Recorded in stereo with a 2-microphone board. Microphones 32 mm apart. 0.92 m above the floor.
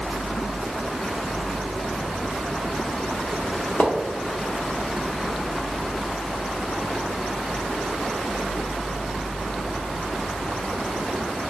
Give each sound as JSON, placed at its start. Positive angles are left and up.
{"t": 3.8, "sound": "a splash", "side_deg": 75, "distance_m": 0.9}